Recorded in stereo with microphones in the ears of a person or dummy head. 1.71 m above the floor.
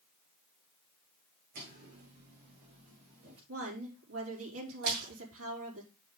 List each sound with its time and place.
1.6 s footsteps: 60° right (ahead or behind), 5.5 m; by 3.4 s 50° right (ahead or behind), 6 m
3.5 s a woman speaking: 80° right, 5 m
4.8 s a splash: 60° right (ahead or behind), 3.5 m